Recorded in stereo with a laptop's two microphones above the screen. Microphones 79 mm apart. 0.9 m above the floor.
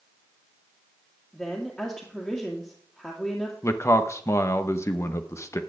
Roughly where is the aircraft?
No aircraft in this recording.